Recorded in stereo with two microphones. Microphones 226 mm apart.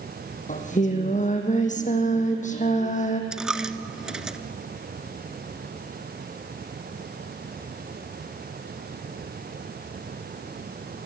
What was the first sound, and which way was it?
Singing, 35° left (ahead or behind).